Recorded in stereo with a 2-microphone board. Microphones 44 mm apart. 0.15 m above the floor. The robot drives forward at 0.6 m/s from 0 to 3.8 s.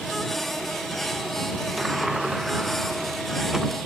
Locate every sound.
1.8 s a sliding door: 10° right (ahead or behind); by 3.7 s 5° right (ahead or behind)